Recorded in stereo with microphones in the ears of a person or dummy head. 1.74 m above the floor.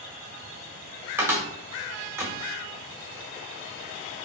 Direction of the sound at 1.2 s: 10° right (ahead or behind).